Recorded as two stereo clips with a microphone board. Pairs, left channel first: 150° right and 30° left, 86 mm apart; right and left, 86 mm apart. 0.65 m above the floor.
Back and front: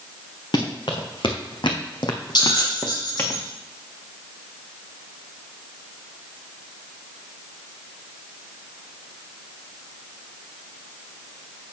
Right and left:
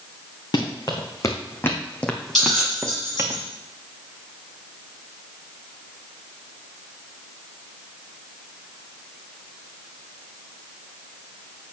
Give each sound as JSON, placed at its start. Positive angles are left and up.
{"t": 0.5, "sound": "running footsteps", "azimuth_deg": -120, "distance_m": 2.0}
{"t": 2.4, "sound": "a bell", "azimuth_deg": -175, "distance_m": 5.0}